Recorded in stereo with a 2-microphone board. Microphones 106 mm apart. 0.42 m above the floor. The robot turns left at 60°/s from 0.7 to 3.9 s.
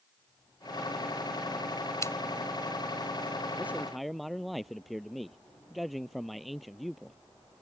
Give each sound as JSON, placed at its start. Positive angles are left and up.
{"t": 2.0, "sound": "scissors", "side_deg": 30}
{"t": 3.6, "sound": "a man speaking", "side_deg": -20}